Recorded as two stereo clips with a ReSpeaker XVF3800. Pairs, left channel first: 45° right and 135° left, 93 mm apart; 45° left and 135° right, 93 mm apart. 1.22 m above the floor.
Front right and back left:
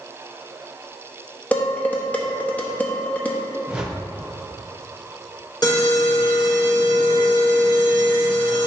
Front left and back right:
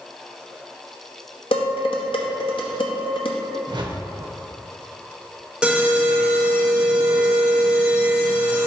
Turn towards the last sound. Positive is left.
turn(degrees=-60)